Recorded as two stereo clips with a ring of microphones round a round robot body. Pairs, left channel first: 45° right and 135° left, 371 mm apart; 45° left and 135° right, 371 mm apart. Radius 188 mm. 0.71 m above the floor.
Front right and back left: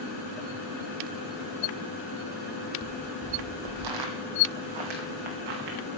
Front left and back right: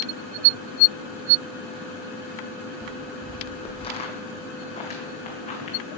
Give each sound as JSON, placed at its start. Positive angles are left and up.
{"t": 2.8, "sound": "footsteps", "azimuth_deg": 125, "distance_m": 0.8}